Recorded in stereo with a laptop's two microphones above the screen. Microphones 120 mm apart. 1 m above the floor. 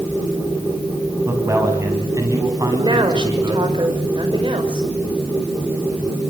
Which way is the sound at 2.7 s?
40° right (ahead or behind).